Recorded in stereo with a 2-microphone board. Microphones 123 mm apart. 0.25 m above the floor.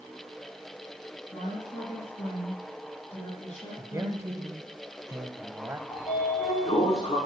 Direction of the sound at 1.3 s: 70° left (ahead or behind).